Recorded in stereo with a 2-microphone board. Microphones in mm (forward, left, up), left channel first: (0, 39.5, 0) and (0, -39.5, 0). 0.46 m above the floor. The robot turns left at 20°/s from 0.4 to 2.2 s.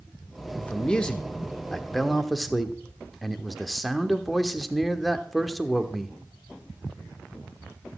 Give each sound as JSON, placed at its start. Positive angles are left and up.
{"t": 0.6, "sound": "a man speaking", "side_deg": 15, "distance_m": 1.1}